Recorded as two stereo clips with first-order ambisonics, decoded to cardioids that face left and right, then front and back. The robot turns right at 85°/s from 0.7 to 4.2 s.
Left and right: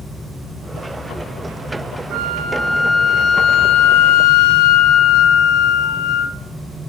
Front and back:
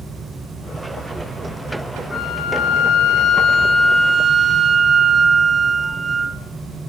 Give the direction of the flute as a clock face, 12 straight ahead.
2 o'clock.